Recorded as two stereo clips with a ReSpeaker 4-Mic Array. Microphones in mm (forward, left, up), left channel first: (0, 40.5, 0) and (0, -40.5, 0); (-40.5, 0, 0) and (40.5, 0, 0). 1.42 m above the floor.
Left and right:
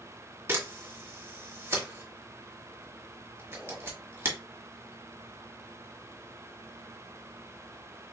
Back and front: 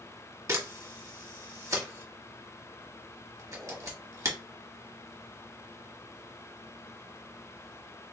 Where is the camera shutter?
40° right, 1.3 m.